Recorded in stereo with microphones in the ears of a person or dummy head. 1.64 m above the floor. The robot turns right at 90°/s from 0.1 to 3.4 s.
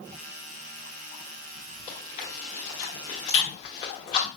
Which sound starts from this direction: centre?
Chewing, at 1.9 s.